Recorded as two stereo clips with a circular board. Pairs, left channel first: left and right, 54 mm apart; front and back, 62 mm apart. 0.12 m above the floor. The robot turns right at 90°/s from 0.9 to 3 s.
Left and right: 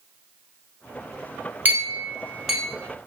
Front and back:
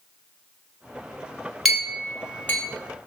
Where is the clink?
90° right, 1.2 m; by 2.6 s 5° right, 1.2 m.